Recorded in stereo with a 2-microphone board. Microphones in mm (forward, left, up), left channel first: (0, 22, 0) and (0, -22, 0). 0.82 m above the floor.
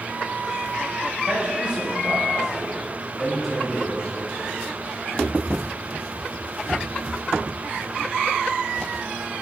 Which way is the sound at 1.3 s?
30° right (ahead or behind).